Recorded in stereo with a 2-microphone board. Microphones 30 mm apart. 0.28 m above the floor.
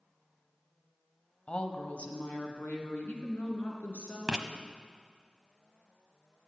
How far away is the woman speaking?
About 1.2 m.